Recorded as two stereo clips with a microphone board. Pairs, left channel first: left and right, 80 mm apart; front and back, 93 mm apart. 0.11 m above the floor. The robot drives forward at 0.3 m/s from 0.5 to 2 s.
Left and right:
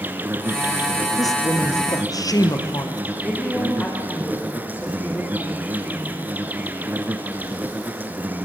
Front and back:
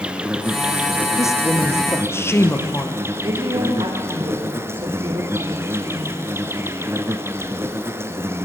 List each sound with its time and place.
0.0 s an insect: 115° right, 1.5 m; by 8.5 s 140° right, 1.6 m
1.2 s a woman speaking: 55° left, 2.5 m; by 3.0 s 60° left, 2 m
3.2 s a woman speaking: 155° left, 6 m